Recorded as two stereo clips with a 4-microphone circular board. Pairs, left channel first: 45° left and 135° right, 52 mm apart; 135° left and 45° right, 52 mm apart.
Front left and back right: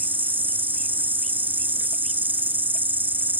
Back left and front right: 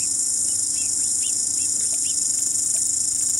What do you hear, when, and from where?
0.0 s an insect: 130° right